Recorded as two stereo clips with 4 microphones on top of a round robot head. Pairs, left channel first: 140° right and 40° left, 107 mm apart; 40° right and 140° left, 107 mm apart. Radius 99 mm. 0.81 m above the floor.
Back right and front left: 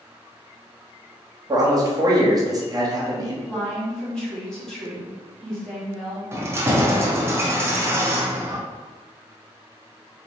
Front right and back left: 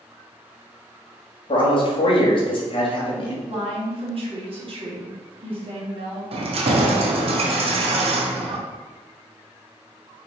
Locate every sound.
1.5 s a man speaking: 10° right, 1.2 m
3.5 s a woman speaking: 140° left, 1.7 m
6.3 s keys jangling: 110° left, 0.6 m